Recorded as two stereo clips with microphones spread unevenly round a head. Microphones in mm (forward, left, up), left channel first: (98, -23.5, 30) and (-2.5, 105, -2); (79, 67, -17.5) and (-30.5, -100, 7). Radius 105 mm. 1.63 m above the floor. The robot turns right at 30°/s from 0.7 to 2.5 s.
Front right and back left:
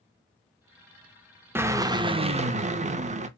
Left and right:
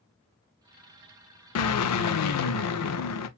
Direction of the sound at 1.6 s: 50° left.